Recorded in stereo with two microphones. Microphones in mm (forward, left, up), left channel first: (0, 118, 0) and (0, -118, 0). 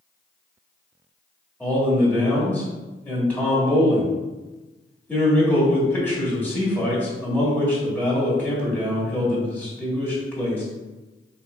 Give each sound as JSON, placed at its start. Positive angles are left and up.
{"t": 1.6, "sound": "a man speaking", "side_deg": 5, "distance_m": 1.6}